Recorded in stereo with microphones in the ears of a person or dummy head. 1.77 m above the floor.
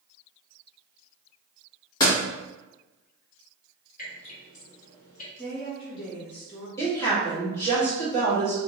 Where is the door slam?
20° left (ahead or behind), 1.5 m.